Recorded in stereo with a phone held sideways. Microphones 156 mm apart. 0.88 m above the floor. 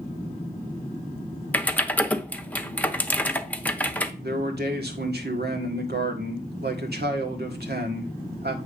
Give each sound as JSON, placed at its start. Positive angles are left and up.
{"t": 1.5, "sound": "typing on a keyboard", "side_deg": 10, "distance_m": 0.7}
{"t": 4.2, "sound": "a man speaking", "side_deg": -75, "distance_m": 1.7}